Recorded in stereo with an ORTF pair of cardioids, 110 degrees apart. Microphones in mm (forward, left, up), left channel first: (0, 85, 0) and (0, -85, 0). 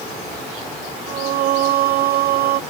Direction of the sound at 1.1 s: 65° right.